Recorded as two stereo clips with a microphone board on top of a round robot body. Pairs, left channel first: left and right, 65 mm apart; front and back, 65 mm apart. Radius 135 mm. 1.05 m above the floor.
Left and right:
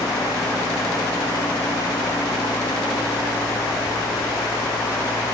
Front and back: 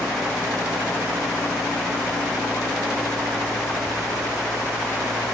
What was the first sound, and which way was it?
Only background noise.